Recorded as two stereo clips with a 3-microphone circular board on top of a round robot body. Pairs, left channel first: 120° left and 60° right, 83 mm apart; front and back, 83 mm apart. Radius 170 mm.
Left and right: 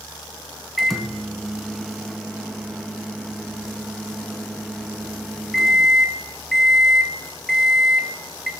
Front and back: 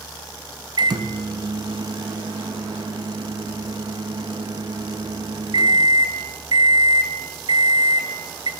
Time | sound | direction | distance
0.8 | a microwave | 150° right | 1.0 m